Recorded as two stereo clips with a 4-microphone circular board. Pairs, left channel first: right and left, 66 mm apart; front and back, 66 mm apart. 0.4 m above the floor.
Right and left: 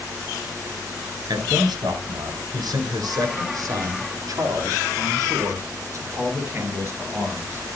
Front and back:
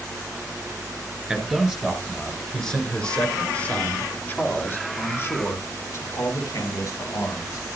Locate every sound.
1.3 s a man speaking: 100° left, 6 m; by 7.7 s 30° left, 7.5 m